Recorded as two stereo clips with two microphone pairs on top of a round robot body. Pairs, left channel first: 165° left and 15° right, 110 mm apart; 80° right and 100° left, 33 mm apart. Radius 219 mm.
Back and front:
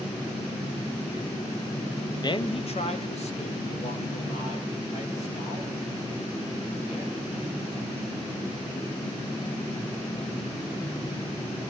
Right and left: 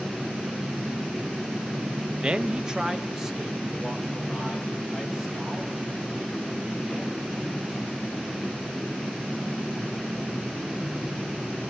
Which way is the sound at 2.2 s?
125° left.